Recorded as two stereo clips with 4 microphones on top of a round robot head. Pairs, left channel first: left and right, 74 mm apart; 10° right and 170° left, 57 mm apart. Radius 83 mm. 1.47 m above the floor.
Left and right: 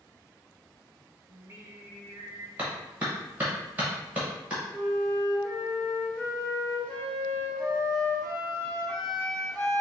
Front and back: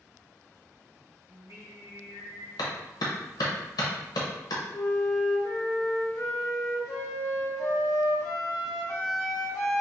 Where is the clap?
15° right, 0.9 m.